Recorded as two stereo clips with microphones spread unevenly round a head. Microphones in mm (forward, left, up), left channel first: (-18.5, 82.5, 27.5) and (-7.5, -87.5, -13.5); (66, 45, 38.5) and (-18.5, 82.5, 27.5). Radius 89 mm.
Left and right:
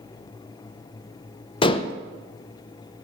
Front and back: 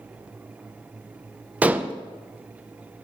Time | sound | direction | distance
1.6 | dishes clattering | 80° left | 0.5 m